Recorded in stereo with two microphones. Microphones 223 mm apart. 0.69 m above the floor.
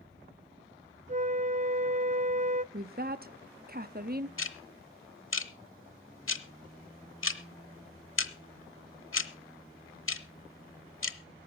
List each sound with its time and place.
1.1 s a flute: 35° right (ahead or behind), 0.5 m
2.7 s a woman speaking: 45° right (ahead or behind), 0.7 m
4.4 s ticking: 65° left (ahead or behind), 1.0 m